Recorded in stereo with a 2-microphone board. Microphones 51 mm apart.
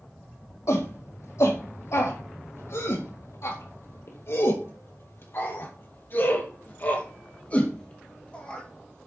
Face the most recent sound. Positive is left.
turn(degrees=20)  # may be behind; listen again after turning